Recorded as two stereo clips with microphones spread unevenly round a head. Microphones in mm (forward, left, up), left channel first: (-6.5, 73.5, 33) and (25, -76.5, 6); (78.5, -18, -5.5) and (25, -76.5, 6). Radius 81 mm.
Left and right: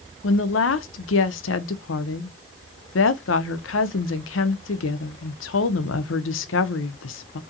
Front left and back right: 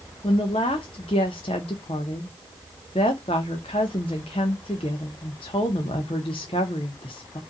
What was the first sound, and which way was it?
A woman speaking, 100° left.